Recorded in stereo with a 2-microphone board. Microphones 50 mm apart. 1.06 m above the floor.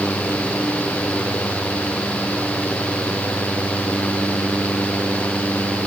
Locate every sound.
Only background noise.